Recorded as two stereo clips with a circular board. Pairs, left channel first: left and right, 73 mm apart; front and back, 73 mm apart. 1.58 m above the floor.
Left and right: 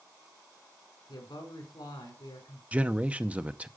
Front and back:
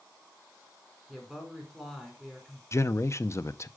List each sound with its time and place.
1.1 s a woman speaking: 85° left, 5 m
2.7 s a man speaking: 25° right, 0.6 m